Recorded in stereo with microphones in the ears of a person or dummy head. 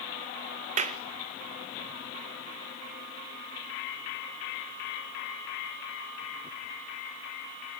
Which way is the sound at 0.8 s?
40° right (ahead or behind).